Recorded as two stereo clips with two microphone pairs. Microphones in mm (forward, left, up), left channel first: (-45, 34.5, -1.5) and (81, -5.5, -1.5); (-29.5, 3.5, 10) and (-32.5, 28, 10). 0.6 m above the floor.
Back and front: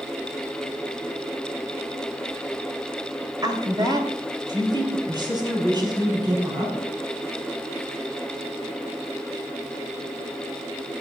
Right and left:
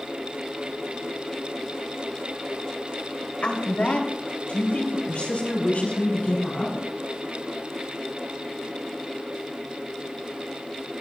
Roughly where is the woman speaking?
Right.